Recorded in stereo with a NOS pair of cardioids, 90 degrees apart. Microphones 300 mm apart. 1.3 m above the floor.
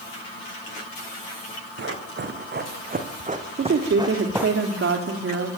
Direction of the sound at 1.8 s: 45° right.